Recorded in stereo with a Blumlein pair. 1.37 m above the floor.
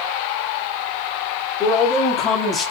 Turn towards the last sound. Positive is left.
turn(degrees=25)